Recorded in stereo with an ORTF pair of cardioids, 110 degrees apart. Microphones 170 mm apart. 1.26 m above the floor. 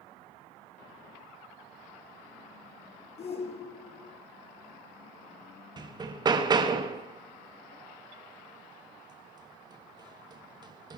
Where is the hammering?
25° right, 1.5 m.